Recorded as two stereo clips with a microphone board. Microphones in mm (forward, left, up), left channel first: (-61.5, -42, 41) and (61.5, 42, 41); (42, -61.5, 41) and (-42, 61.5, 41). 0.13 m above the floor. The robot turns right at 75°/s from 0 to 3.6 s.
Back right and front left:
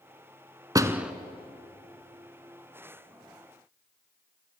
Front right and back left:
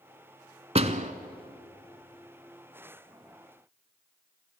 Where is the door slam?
95° left, 1.1 m; by 1.1 s 120° left, 1.1 m.